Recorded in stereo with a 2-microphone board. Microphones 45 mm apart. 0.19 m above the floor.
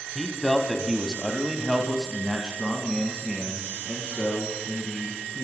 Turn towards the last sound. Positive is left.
turn(degrees=-20)  # may be behind; listen again after turning